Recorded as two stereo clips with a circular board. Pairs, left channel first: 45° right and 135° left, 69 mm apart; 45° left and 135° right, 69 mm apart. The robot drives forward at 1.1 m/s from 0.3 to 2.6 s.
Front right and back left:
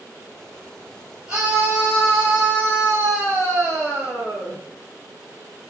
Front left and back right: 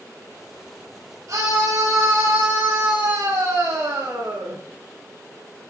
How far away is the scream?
About 2.5 m.